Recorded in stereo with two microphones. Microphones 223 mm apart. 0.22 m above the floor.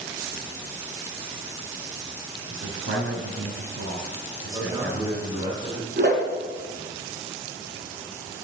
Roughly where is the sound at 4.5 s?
Centre.